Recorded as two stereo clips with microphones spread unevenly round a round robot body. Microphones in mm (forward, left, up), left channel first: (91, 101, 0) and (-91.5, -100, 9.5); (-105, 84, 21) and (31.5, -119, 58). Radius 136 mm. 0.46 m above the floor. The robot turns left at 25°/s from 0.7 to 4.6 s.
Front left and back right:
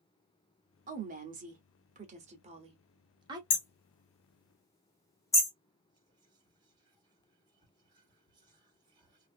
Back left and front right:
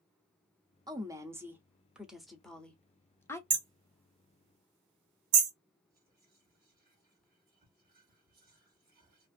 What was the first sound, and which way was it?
A woman speaking, 130° right.